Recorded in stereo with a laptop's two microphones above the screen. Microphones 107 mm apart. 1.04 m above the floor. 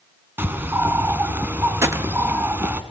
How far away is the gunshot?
About 1.0 m.